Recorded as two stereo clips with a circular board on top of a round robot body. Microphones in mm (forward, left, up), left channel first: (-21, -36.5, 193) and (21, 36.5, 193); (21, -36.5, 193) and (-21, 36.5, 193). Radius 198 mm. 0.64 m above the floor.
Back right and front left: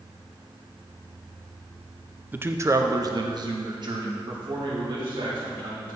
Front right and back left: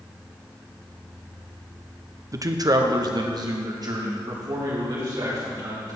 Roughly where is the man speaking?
Behind left.